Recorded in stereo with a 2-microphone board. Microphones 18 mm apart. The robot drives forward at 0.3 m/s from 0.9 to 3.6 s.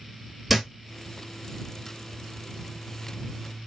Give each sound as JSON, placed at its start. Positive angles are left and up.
{"t": 0.5, "sound": "a thud", "side_deg": 0, "distance_m": 1.2}